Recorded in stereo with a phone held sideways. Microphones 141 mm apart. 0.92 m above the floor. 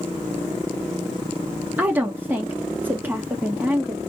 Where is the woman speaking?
15° right (ahead or behind), 1.9 m.